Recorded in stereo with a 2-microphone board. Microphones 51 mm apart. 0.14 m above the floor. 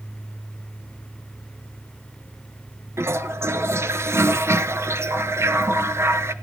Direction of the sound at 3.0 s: 60° right (ahead or behind).